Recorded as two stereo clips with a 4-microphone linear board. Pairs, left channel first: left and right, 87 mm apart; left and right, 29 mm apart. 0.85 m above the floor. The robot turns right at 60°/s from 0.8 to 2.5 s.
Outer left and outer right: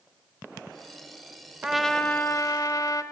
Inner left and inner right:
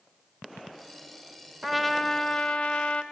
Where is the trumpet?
10° right, 1.3 m; by 3.0 s 40° left, 1.3 m.